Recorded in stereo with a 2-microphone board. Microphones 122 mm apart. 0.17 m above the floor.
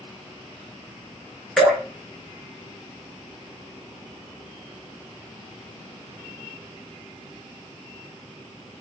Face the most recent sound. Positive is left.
turn(degrees=5)  # may be behind; listen again after turning